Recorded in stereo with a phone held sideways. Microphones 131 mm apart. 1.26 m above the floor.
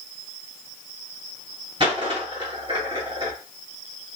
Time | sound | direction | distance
1.8 | a dropped coin | 40° right (ahead or behind) | 1.5 m